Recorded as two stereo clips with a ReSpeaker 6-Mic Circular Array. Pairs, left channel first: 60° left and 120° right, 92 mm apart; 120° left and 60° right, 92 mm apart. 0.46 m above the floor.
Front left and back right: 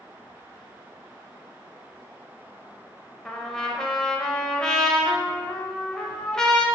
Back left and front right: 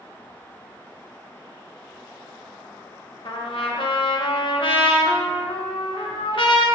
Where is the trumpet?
145° left, 0.5 m.